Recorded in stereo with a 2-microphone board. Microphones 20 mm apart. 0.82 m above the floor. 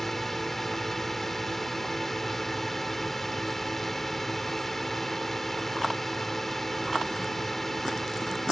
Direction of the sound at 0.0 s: 15° left (ahead or behind).